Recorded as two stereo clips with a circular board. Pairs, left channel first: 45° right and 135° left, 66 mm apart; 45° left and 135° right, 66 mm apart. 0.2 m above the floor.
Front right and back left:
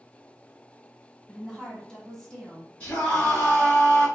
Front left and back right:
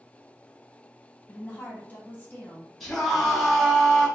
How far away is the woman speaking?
About 1.1 m.